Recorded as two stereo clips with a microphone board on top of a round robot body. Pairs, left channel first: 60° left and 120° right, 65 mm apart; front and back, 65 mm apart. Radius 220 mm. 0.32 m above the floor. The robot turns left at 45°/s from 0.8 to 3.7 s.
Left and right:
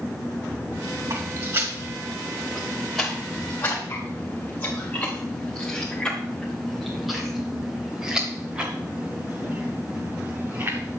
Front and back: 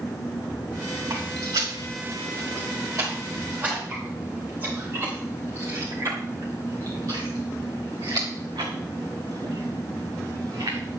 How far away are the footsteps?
About 4.5 m.